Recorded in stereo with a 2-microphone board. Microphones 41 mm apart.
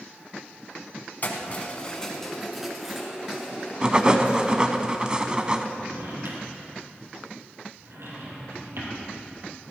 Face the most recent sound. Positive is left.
turn(degrees=-80)